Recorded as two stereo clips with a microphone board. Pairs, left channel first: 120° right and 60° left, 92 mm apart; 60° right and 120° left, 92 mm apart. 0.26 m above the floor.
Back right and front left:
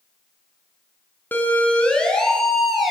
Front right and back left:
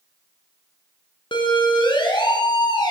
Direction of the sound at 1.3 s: 50° right.